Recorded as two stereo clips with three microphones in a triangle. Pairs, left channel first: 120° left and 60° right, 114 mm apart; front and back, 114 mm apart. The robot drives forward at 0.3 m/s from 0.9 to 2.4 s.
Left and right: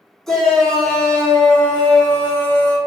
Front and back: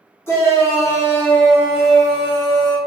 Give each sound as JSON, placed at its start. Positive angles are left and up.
{"t": 0.3, "sound": "a shout", "azimuth_deg": 40, "distance_m": 0.8}